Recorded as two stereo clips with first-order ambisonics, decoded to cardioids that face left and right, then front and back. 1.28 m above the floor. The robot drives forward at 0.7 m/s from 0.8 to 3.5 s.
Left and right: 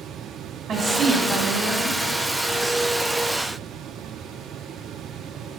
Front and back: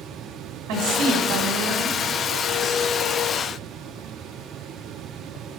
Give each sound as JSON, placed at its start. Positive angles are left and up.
{"t": 0.7, "sound": "a woman speaking", "azimuth_deg": -160, "distance_m": 1.2}